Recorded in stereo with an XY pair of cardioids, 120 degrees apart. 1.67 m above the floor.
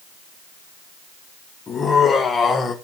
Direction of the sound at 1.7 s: 35° left.